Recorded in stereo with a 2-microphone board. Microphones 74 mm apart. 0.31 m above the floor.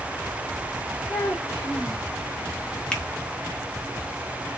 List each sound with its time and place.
1.1 s a child speaking: 25° left (ahead or behind), 2.5 m
2.9 s a finger snap: 10° left (ahead or behind), 1.3 m